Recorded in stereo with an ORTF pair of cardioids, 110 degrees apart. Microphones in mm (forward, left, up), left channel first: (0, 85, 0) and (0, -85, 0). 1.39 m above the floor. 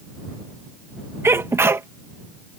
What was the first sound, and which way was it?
A sneeze, 15° right.